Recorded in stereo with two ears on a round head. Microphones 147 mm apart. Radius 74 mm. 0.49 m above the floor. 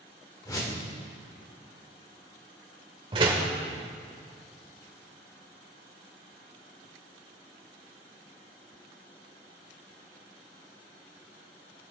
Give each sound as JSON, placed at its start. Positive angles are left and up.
{"t": 0.5, "sound": "a whoosh", "side_deg": 20, "distance_m": 1.3}
{"t": 3.1, "sound": "a door slam", "side_deg": -30, "distance_m": 1.1}